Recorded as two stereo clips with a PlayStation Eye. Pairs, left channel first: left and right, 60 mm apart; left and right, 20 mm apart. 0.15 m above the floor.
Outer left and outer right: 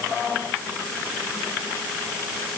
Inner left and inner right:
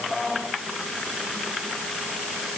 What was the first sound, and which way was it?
Only background noise.